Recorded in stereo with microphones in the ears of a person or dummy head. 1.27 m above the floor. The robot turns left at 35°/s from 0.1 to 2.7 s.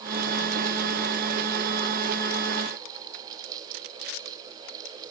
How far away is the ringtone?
No ringtone in this recording.